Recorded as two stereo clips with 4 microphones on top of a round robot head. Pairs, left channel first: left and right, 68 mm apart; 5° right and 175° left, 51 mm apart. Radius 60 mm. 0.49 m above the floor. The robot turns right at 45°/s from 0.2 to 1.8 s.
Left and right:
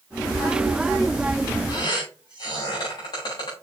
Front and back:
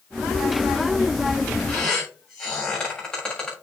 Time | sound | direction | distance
1.7 | a squeak | 65° left | 6.5 m